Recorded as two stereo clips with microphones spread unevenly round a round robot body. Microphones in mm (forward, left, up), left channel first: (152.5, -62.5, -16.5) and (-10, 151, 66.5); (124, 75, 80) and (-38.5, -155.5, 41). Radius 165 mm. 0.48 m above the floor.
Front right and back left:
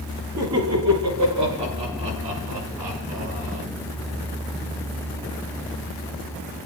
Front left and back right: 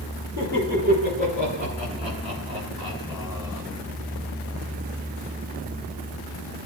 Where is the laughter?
175° left, 8 m; by 3.6 s 155° left, 6 m.